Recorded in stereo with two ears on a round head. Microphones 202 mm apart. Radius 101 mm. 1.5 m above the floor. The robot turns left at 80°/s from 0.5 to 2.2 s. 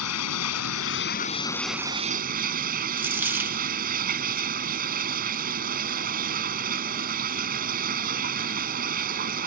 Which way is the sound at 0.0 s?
95° left.